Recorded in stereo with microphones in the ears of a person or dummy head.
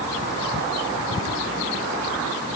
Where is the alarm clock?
No alarm clock in this recording.